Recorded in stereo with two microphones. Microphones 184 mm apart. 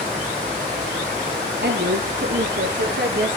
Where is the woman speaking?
65° right (ahead or behind), 2 m; by 3.4 s 70° right (ahead or behind), 4.5 m.